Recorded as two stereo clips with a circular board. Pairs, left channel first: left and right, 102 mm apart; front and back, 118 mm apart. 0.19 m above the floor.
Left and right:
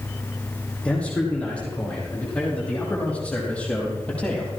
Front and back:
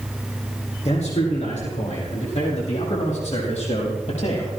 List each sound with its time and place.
0.8 s a man speaking: 10° left, 7.5 m; by 4.5 s 15° left, 5 m